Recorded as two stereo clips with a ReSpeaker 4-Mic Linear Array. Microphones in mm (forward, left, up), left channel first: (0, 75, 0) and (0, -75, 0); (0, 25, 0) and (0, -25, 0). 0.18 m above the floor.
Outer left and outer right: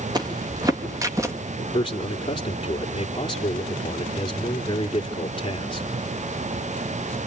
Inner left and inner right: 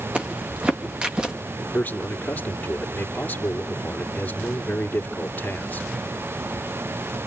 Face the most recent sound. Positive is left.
turn(degrees=35)  # may be behind; listen again after turning